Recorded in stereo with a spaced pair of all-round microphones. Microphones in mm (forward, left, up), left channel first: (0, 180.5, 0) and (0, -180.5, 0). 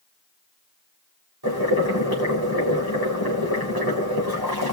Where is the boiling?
80° right, 4 m.